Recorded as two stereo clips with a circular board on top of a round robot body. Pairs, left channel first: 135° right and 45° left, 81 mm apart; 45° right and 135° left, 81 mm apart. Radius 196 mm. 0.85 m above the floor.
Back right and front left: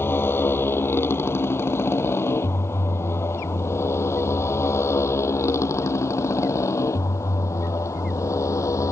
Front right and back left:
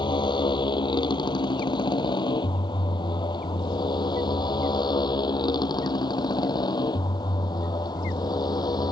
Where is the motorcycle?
70° right; by 8.9 s 80° right.